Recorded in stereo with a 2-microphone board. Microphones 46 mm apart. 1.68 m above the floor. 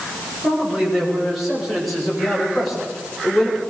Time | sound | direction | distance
0.4 | a man speaking | 5° right (ahead or behind) | 9.5 m